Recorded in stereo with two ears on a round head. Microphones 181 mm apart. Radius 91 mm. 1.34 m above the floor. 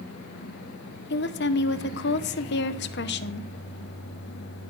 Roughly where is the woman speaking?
Left.